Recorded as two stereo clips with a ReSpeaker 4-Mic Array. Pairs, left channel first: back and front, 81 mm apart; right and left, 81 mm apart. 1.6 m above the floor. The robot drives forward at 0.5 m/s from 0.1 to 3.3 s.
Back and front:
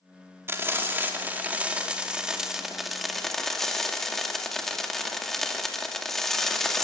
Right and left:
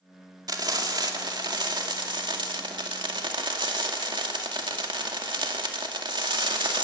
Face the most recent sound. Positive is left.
turn(degrees=95)